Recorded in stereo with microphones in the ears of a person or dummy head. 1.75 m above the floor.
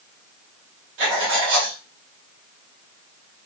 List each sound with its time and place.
1.0 s writing: 65° right (ahead or behind), 1.0 m